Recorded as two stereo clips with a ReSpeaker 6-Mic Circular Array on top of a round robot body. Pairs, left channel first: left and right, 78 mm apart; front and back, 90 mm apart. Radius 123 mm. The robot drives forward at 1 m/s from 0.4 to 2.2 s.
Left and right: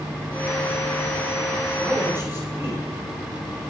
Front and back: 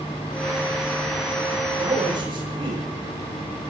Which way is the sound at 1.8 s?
155° right.